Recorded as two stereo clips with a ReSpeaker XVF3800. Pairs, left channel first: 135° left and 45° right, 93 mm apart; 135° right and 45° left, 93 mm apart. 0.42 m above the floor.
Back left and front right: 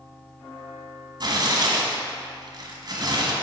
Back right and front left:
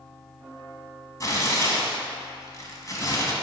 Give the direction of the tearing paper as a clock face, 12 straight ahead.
3 o'clock.